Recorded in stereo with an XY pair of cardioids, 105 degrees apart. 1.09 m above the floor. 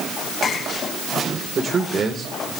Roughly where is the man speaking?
Ahead right.